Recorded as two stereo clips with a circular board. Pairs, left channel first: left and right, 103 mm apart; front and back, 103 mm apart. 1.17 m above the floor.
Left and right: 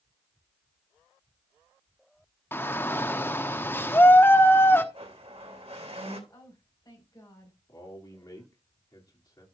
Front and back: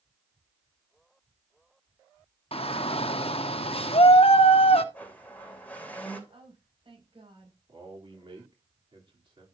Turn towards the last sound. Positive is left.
turn(degrees=145)